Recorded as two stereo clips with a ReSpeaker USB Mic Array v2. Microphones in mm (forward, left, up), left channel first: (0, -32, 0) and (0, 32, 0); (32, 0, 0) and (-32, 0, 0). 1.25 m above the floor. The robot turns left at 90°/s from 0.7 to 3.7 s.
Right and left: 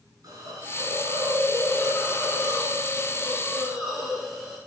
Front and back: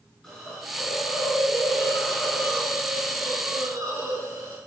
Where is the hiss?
95° left, 6.5 m; by 4.6 s 175° right, 6.5 m.